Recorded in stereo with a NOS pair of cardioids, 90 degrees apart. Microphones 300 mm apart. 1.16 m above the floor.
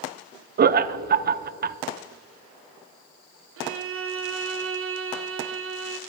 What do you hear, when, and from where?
0.6 s laughter: 35° right, 0.5 m
3.6 s a violin: 45° right, 0.7 m